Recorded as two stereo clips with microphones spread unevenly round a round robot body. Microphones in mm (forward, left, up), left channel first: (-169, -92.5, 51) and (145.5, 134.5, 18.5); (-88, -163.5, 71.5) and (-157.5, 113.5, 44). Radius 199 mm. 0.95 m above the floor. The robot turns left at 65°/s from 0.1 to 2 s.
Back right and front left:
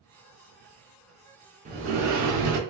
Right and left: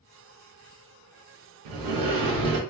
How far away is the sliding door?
About 0.5 m.